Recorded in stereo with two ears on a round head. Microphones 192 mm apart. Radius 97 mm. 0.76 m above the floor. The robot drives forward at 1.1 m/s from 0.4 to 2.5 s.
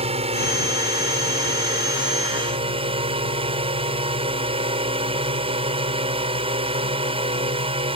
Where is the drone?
30° right (ahead or behind); by 8.0 s 25° right (ahead or behind).